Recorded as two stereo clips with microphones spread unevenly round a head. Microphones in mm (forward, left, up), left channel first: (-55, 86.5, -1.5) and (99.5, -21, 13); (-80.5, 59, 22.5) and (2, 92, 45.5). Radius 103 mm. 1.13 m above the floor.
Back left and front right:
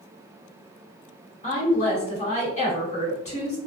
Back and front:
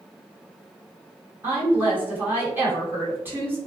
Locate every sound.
1.4 s a woman speaking: 90° left, 1.2 m